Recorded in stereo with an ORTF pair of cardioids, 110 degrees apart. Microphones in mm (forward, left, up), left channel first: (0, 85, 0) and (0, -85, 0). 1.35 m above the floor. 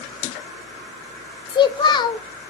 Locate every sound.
1.5 s a child speaking: 25° left, 0.5 m